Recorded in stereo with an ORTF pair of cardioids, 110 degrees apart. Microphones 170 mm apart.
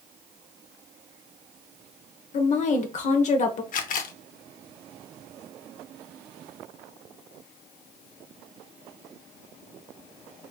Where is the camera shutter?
55° left, 0.7 m.